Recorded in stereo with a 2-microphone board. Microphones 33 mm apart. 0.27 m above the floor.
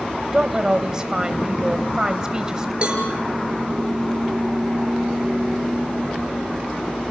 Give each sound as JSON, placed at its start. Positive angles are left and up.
{"t": 0.3, "sound": "a woman speaking", "side_deg": -20, "distance_m": 0.9}
{"t": 2.8, "sound": "a cowbell", "side_deg": -30, "distance_m": 5.5}